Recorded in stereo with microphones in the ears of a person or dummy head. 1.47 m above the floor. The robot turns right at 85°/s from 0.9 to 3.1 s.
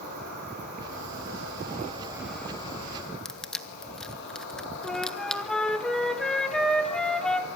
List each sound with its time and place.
0.0 s an insect: 120° right, 8 m; by 7.6 s 65° left, 8 m
3.2 s crushing: 5° left (ahead or behind), 1.4 m
4.8 s a flute: 5° left (ahead or behind), 1.7 m